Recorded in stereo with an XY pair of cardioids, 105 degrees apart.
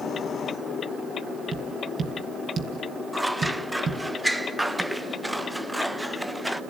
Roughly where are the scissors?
Ahead.